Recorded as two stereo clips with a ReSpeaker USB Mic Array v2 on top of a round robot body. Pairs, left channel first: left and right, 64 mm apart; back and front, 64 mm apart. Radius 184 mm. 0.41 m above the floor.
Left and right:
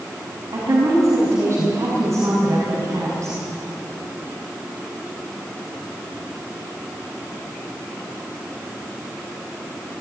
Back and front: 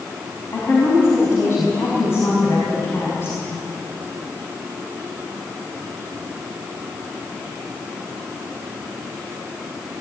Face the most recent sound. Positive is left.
turn(degrees=-130)